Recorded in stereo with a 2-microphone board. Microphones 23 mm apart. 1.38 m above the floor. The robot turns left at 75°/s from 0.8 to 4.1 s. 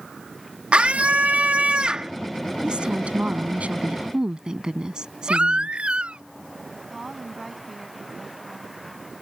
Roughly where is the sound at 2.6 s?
Ahead right.